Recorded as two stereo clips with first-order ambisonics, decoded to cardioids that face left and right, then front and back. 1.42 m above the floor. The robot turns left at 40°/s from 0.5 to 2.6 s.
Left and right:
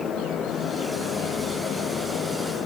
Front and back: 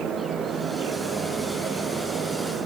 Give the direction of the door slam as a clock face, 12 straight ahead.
No door slam in this recording.